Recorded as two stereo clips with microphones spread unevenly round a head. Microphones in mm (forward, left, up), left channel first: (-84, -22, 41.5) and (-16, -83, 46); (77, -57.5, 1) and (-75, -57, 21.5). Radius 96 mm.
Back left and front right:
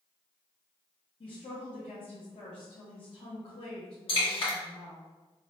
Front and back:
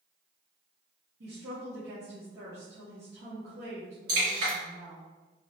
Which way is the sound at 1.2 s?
150° left.